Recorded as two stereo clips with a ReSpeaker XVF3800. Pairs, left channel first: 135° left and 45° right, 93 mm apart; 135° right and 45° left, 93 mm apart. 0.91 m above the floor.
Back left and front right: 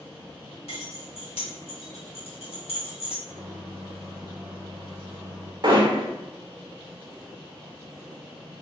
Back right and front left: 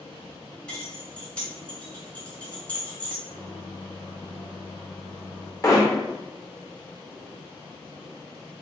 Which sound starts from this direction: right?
Hammering, at 5.6 s.